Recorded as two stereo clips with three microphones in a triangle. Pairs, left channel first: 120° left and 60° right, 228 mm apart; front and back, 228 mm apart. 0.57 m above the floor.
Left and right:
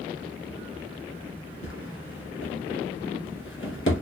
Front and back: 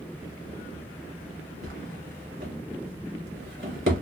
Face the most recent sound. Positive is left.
turn(degrees=150)